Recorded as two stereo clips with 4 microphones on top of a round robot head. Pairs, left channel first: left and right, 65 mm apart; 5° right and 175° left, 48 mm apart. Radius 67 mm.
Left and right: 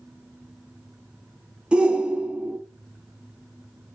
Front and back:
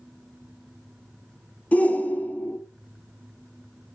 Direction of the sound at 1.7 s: 25° right.